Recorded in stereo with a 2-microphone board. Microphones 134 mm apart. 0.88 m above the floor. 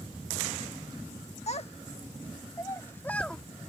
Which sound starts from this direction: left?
A child speaking, at 1.5 s.